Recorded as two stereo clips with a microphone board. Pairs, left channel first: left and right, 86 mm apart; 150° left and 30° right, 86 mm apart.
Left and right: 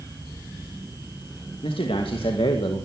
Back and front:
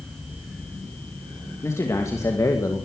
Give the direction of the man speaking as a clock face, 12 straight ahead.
9 o'clock.